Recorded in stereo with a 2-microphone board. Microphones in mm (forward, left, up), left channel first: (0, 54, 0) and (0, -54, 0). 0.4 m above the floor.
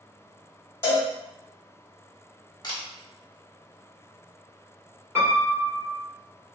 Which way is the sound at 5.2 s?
20° right (ahead or behind).